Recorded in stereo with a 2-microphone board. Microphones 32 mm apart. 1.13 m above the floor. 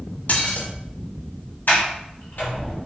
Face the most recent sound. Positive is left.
turn(degrees=80)